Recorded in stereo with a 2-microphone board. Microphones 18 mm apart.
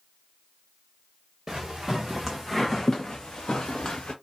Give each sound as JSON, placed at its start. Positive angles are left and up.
{"t": 1.5, "sound": "footsteps", "side_deg": -30, "distance_m": 1.2}